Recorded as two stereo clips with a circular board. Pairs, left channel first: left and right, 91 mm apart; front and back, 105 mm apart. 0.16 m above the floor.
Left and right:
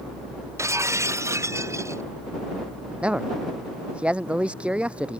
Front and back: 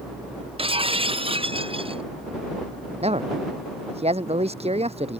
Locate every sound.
0.6 s breaking glass: 150° right
3.0 s a man speaking: 165° right